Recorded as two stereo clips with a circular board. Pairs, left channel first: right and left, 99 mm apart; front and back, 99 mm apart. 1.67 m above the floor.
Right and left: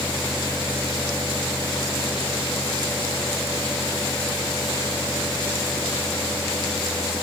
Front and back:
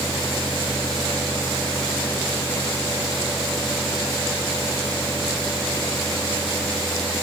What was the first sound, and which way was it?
Only background noise.